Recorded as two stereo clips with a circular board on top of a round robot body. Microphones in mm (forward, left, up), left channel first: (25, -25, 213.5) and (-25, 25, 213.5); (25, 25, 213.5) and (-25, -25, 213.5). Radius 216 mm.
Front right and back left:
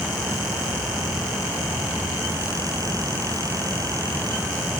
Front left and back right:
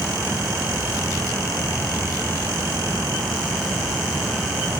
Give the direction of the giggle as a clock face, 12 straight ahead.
I don't hear a giggle.